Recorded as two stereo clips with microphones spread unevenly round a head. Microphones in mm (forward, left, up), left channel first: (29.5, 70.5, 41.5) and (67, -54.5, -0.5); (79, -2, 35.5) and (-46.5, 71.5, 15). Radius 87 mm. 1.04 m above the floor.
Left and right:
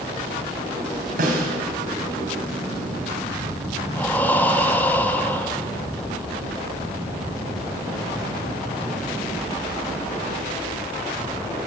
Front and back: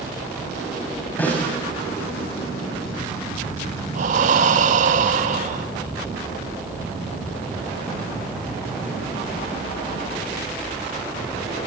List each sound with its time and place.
1.2 s a snare drum: 110° right, 5.5 m
4.0 s breathing: 170° right, 1.2 m